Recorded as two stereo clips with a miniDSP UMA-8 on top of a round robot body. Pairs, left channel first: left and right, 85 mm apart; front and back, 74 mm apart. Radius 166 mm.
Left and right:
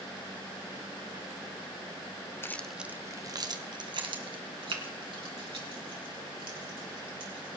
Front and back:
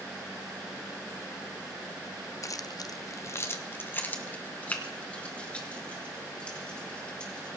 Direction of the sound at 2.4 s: 35° left.